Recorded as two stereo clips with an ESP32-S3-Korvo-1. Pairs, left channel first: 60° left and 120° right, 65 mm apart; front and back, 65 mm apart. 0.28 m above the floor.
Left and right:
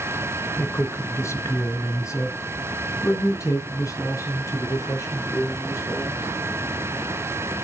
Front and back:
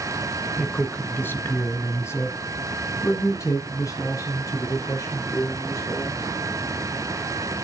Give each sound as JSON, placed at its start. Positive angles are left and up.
{"t": 0.6, "sound": "a man speaking", "azimuth_deg": 60, "distance_m": 1.1}